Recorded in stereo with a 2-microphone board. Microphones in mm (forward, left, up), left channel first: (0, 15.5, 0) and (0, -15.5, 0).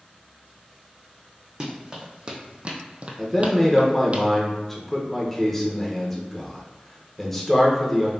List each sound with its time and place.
1.6 s running footsteps: 25° right (ahead or behind), 1.2 m; by 4.2 s 40° right (ahead or behind), 0.6 m
3.2 s a man speaking: 10° left (ahead or behind), 0.9 m